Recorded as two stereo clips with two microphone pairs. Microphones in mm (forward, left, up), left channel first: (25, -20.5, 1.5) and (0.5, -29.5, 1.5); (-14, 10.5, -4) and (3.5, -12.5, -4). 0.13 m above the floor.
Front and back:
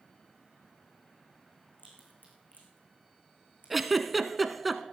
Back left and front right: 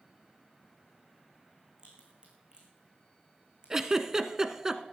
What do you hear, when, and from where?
1.8 s a crack: 5° left, 5 m
3.7 s a giggle: 75° right, 0.8 m